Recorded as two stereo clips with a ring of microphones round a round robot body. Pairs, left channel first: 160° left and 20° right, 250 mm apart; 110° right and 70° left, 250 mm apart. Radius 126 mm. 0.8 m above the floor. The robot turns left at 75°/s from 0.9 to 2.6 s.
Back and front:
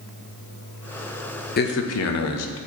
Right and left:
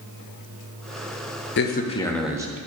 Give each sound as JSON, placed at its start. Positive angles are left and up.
{"t": 1.6, "sound": "a man speaking", "azimuth_deg": -150, "distance_m": 0.7}